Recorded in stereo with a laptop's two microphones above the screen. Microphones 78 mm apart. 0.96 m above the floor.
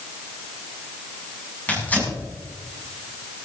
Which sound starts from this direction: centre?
Tearing paper, at 1.7 s.